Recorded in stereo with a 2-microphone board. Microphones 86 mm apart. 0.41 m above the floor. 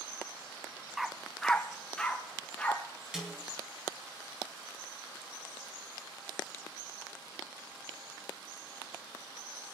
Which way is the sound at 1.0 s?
5° right (ahead or behind).